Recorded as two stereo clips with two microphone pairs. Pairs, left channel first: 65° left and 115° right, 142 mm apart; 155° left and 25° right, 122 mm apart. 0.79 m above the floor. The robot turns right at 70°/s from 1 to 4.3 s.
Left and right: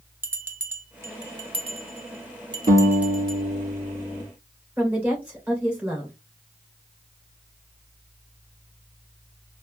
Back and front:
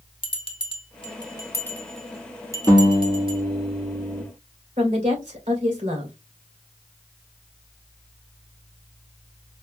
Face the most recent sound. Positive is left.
turn(degrees=-30)